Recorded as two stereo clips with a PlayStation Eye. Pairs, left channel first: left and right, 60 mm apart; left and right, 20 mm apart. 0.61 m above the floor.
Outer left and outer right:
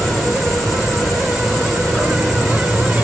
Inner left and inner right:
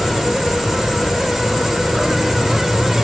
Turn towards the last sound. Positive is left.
turn(degrees=0)  # may be behind; listen again after turning